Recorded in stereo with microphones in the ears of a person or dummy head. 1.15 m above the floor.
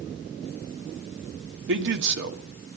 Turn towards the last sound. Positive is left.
turn(degrees=-65)  # may be behind; listen again after turning